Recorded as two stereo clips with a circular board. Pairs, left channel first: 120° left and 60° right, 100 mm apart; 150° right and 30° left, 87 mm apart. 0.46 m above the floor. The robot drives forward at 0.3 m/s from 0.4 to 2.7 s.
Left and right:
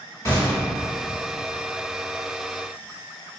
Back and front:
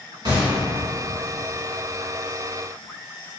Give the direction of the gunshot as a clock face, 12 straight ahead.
10 o'clock.